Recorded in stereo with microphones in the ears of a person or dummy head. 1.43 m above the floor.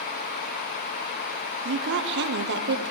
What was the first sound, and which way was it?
A woman speaking, 55° right (ahead or behind).